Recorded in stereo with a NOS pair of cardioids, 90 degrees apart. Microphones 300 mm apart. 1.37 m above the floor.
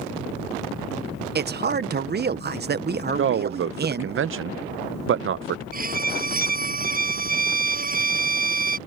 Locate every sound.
1.4 s a man speaking: 35° right
3.2 s a man speaking: 45° right
5.7 s a violin: 30° right